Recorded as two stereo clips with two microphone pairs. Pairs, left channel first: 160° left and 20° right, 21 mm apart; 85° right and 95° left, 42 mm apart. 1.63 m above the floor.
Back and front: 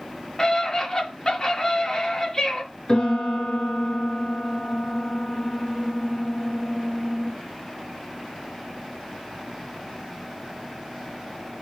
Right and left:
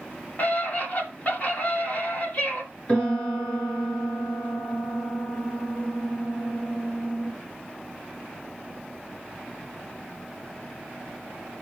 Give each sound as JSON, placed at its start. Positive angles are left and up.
{"t": 0.4, "sound": "a scream", "azimuth_deg": -140, "distance_m": 4.5}
{"t": 2.9, "sound": "a piano", "azimuth_deg": -150, "distance_m": 5.5}